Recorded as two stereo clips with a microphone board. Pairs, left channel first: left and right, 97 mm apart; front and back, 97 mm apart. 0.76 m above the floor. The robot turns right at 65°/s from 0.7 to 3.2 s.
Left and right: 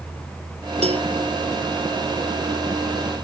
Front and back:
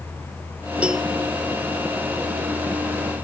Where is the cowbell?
100° right; by 1.1 s 85° right.